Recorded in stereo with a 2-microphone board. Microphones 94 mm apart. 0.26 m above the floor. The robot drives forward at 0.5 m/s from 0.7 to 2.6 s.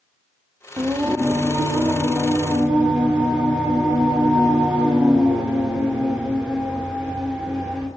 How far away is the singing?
About 0.5 m.